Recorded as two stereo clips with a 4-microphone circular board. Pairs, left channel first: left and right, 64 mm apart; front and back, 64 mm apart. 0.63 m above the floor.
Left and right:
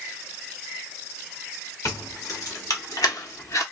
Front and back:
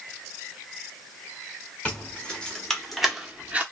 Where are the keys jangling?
70° left, 1.2 m; by 3.6 s 120° left, 0.6 m.